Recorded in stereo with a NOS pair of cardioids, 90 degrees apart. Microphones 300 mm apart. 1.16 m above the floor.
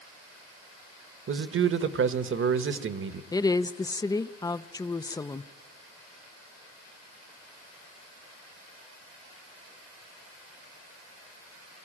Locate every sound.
1.3 s a man speaking: 45° right, 1.3 m
3.3 s a woman speaking: 15° left, 0.5 m